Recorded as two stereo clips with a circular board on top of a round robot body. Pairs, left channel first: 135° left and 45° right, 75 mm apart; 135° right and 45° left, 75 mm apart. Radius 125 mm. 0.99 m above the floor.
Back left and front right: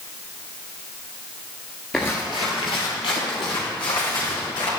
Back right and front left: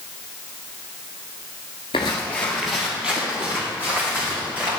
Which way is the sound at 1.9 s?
145° right.